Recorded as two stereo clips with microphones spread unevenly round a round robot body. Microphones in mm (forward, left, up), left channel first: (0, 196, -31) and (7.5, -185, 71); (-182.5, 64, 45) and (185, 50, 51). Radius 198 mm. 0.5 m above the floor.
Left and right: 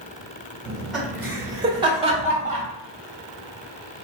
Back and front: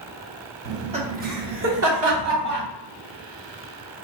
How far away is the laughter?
About 1.2 m.